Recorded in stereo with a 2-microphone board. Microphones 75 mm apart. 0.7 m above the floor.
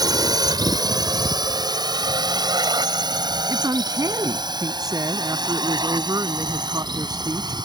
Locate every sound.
0.0 s a drone: 60° right (ahead or behind); by 7.7 s 70° right (ahead or behind)
3.5 s a woman speaking: 55° right (ahead or behind)